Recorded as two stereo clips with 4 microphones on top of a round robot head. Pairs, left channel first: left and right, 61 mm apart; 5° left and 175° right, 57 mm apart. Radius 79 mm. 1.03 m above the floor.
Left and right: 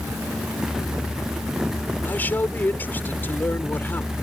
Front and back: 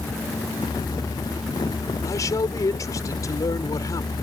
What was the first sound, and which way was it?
A man speaking, 30° left.